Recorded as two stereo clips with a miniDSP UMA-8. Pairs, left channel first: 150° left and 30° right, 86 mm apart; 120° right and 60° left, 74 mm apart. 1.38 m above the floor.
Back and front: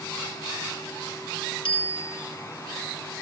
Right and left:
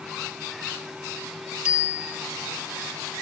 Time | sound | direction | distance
1.6 | a bicycle bell | 135° left | 5 m